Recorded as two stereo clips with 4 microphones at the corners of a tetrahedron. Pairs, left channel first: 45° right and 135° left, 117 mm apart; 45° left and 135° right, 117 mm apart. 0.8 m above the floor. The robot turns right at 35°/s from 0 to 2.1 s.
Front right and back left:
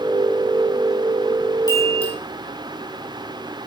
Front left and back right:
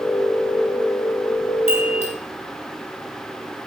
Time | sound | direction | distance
1.7 | a chime | 10° left | 4.5 m